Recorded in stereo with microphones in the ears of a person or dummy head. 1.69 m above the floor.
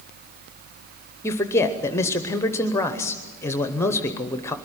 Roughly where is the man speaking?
Centre.